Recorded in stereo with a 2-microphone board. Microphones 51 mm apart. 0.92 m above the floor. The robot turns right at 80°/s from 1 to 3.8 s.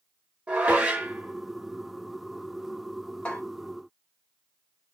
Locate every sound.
0.5 s dishes clattering: 25° right (ahead or behind), 1.1 m; by 3.4 s 15° left (ahead or behind), 1.1 m